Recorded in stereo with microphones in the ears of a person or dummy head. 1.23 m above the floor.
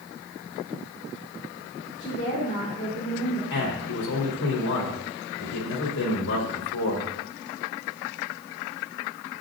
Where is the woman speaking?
35° left (ahead or behind), 3.5 m.